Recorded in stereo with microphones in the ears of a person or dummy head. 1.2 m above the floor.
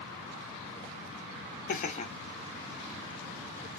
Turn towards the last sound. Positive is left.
turn(degrees=-40)  # may be behind; listen again after turning